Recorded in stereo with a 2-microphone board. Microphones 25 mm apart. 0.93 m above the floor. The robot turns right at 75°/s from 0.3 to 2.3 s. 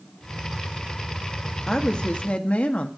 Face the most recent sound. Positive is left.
turn(degrees=65)